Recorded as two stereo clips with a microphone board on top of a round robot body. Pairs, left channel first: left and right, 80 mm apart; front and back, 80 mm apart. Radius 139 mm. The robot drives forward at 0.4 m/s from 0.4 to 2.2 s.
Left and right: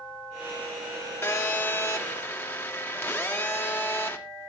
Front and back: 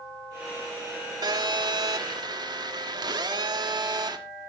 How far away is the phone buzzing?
About 2.5 m.